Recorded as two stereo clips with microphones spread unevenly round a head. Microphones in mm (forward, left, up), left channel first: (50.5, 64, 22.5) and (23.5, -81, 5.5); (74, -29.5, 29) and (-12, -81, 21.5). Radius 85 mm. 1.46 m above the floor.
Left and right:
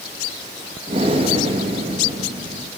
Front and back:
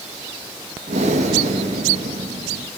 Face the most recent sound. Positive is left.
turn(degrees=-160)